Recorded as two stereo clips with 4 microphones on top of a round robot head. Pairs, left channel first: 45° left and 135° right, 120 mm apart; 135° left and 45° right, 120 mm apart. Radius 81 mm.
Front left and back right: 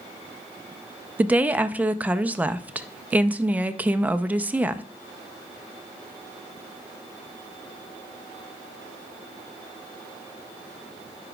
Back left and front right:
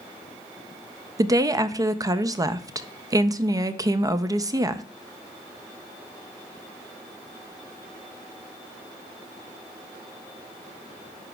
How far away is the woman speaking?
About 0.5 m.